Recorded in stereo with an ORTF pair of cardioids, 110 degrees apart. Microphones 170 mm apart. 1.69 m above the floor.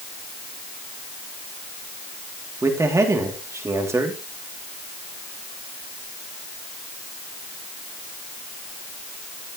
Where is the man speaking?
15° right, 3 m.